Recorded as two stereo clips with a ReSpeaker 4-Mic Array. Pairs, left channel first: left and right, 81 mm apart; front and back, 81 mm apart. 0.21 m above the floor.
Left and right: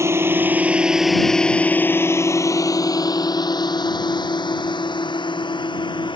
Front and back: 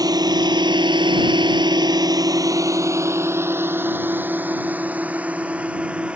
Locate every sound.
0.0 s a drone: 145° right; by 6.2 s 105° left